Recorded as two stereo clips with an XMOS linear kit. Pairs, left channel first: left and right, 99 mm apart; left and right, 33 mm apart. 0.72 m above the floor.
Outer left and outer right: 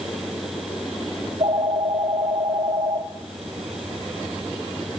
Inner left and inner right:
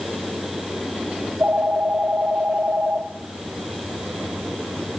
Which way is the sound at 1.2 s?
70° right (ahead or behind).